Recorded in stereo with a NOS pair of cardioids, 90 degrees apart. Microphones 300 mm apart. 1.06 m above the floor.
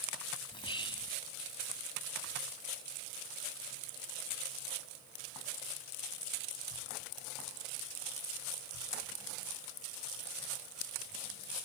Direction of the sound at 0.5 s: 15° left.